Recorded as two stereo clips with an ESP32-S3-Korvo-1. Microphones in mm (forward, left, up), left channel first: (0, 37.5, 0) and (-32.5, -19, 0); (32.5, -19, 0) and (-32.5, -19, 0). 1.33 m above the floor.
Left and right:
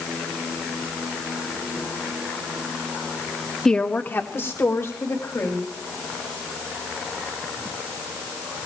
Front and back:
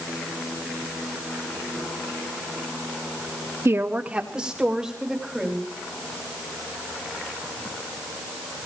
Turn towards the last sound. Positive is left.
turn(degrees=95)